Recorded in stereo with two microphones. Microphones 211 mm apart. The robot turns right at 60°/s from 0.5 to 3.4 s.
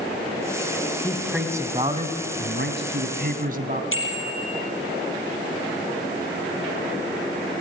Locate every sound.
1.0 s a man speaking: 165° left, 2.5 m; by 3.8 s 55° right, 2.5 m
3.9 s a bicycle bell: 75° left (ahead or behind), 5 m